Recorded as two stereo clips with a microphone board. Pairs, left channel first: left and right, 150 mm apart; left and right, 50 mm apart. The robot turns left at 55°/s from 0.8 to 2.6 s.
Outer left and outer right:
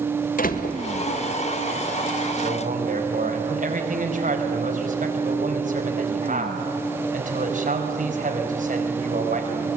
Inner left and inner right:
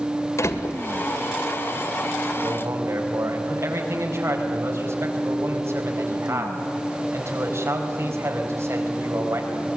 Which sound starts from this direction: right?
A man speaking, at 2.4 s.